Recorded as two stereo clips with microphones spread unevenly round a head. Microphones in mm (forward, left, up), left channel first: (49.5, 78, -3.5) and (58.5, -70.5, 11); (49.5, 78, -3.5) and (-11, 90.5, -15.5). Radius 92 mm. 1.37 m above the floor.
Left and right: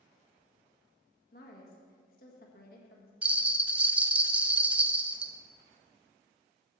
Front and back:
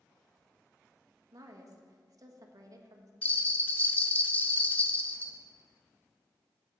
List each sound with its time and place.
1.3 s a woman speaking: 140° left, 1.3 m
3.2 s a bell: 20° right, 0.5 m